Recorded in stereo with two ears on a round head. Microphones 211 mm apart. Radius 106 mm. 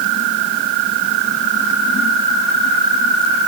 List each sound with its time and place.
Only background noise.